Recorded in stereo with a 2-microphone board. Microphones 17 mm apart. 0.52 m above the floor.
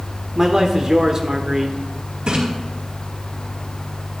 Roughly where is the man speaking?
Right.